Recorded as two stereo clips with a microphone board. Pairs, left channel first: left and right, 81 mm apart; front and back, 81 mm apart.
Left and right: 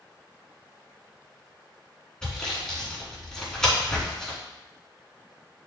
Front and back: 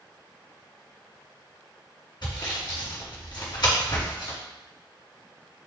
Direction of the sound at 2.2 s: 10° left.